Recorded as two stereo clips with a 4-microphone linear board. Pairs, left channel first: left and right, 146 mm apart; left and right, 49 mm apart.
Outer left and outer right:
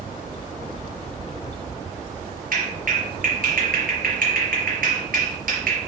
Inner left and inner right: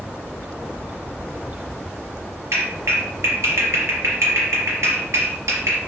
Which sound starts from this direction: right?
A clap, at 2.5 s.